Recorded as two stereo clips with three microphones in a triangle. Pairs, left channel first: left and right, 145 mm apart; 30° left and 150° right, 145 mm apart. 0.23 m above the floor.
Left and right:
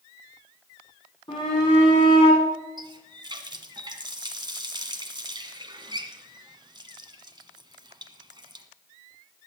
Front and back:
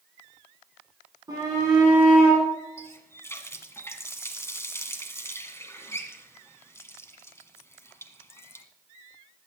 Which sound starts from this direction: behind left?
A shout, at 1.3 s.